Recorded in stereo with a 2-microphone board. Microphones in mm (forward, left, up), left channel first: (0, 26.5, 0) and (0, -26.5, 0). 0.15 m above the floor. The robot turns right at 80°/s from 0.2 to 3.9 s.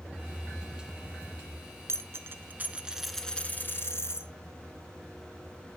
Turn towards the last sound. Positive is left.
turn(degrees=65)